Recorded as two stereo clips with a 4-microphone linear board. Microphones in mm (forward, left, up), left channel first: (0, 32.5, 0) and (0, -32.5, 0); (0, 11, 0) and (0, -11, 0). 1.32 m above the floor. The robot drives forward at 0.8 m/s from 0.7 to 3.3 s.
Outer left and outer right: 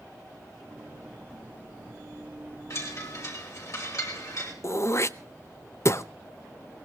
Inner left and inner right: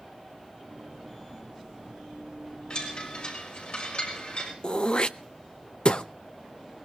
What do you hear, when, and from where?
2.7 s a chime: 45° left (ahead or behind), 6 m; by 4.5 s 50° left (ahead or behind), 5.5 m
4.6 s throat clearing: 45° left (ahead or behind), 0.7 m